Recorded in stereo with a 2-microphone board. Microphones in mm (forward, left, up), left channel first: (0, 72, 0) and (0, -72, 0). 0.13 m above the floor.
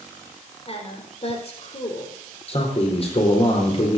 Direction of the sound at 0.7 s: 45° left (ahead or behind).